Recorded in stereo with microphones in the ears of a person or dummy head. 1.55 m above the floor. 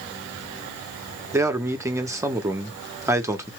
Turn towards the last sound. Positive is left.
turn(degrees=-10)  # may be behind; listen again after turning